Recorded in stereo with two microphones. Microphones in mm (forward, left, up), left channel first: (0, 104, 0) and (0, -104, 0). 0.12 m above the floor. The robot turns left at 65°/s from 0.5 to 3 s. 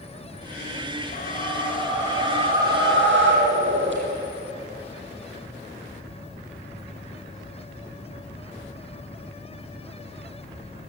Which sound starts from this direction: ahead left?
A whoosh, at 1.1 s.